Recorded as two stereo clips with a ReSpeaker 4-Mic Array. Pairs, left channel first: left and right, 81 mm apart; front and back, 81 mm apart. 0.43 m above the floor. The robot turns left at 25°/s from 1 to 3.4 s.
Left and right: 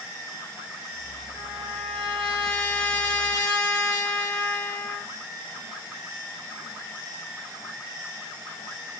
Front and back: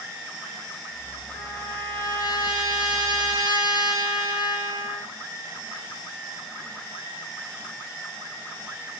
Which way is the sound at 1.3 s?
55° left.